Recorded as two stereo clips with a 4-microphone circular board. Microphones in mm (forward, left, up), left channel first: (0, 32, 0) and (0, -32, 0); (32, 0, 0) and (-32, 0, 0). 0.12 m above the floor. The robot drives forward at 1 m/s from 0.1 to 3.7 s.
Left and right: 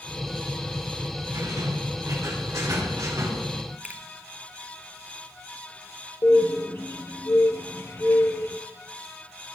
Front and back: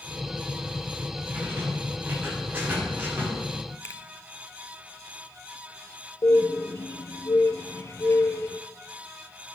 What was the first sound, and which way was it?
A rattle, 110° right.